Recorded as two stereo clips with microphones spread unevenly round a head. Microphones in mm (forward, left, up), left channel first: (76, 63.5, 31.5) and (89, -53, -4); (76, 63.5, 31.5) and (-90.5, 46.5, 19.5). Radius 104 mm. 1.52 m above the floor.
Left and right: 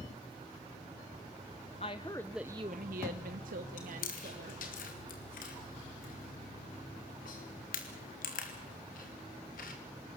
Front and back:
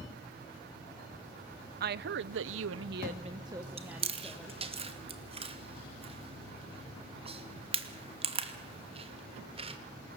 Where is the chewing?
130° left, 2.5 m.